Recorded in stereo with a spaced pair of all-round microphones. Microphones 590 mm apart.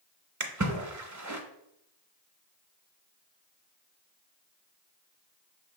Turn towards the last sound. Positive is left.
turn(degrees=-30)  # may be behind; listen again after turning